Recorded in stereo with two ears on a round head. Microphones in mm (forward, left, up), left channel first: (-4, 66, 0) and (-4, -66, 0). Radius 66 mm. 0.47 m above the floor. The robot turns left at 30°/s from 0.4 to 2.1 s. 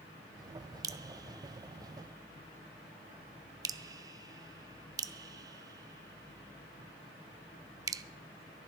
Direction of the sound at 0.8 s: 25° right (ahead or behind).